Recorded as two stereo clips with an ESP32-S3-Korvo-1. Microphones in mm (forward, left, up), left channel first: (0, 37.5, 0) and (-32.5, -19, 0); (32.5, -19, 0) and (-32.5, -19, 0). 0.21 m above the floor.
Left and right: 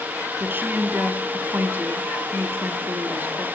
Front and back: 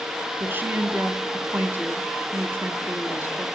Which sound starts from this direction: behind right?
A woman speaking, at 0.4 s.